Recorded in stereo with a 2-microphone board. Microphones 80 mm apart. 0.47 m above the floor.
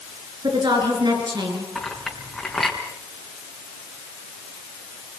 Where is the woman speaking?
75° right (ahead or behind), 7 m; by 1.6 s 70° right (ahead or behind), 7.5 m.